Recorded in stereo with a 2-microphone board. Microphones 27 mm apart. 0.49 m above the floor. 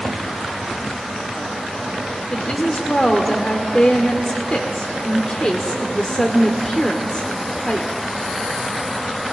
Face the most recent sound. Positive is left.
turn(degrees=40)  # may be behind; listen again after turning